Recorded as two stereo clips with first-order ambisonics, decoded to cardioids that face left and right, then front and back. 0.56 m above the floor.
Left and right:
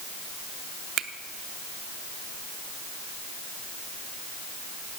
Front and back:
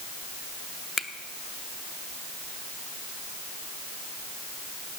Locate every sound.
1.0 s a finger snap: 60° right, 0.7 m